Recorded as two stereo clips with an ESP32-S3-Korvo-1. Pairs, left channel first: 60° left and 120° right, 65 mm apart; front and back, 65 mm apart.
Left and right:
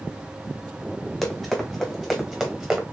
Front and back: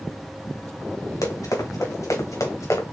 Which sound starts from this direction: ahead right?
Running footsteps, at 1.2 s.